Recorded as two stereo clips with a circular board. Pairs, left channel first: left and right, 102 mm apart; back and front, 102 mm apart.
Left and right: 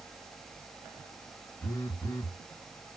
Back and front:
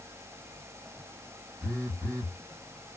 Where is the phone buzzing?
40° left, 2.5 m.